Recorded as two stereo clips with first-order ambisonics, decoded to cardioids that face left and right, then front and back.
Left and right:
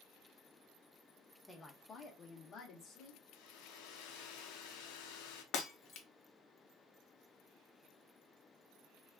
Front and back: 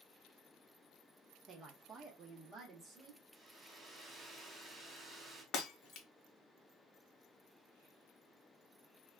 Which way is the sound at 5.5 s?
50° left.